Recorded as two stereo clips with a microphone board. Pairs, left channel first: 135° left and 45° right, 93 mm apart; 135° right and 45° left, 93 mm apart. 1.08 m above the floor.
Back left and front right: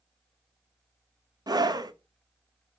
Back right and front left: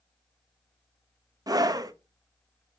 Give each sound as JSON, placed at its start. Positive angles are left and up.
{"t": 1.5, "sound": "a scream", "azimuth_deg": 0, "distance_m": 0.8}